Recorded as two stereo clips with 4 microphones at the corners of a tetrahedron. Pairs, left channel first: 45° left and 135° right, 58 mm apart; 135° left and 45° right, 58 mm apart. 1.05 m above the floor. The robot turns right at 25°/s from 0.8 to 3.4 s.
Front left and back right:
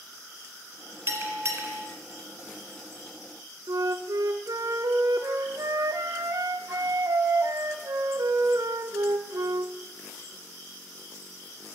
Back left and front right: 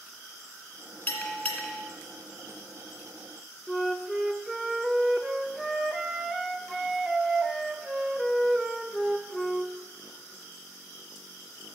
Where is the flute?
130° right, 0.5 m.